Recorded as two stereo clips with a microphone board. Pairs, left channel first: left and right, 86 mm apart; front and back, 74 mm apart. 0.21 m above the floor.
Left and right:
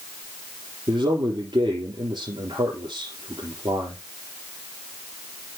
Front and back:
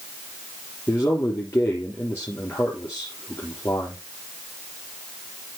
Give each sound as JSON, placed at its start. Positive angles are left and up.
{"t": 0.9, "sound": "a man speaking", "azimuth_deg": -60, "distance_m": 3.5}